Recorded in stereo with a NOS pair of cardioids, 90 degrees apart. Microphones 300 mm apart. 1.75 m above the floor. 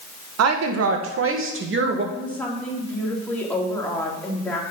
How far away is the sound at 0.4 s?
About 1.7 m.